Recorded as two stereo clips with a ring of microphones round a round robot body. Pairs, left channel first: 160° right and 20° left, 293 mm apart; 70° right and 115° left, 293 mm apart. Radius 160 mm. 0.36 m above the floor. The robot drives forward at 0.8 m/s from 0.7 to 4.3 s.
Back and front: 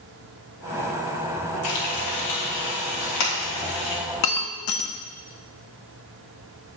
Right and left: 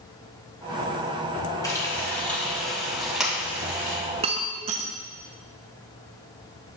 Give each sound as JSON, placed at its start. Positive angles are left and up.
{"t": 1.6, "sound": "frying", "azimuth_deg": -145, "distance_m": 2.0}
{"t": 4.2, "sound": "breaking glass", "azimuth_deg": -175, "distance_m": 0.7}